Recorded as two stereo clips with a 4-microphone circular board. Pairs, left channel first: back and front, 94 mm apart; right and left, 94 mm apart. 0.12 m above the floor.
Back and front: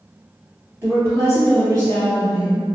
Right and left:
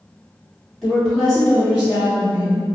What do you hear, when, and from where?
0.8 s a woman speaking: straight ahead, 1.4 m; by 2.6 s 15° left, 2 m